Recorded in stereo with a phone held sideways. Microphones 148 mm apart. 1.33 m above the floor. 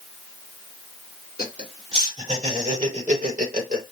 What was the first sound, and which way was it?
Laughter, 40° right (ahead or behind).